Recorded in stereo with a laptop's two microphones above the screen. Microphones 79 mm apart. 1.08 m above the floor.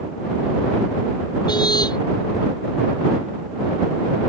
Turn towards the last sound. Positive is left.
turn(degrees=60)  # may be behind; listen again after turning